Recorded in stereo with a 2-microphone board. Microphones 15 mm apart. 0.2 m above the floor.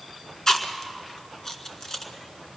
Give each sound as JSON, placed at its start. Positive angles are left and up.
{"t": 0.5, "sound": "chewing", "side_deg": 45, "distance_m": 1.6}